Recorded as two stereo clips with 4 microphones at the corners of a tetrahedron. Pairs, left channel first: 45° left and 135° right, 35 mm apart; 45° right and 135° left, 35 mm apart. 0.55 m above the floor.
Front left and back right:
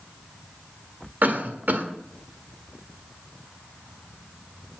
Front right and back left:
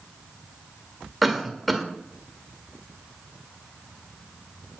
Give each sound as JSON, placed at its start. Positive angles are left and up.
{"t": 1.2, "sound": "a cough", "azimuth_deg": -135, "distance_m": 1.8}